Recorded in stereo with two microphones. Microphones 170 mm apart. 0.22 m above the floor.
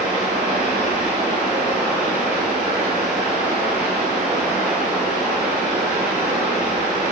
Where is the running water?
5° right (ahead or behind), 7.5 m.